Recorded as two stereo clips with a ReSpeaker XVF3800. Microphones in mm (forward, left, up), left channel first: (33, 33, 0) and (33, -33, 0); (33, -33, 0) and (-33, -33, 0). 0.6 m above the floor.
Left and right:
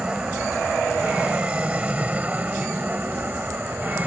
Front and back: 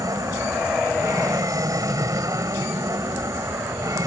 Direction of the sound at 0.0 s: 165° right.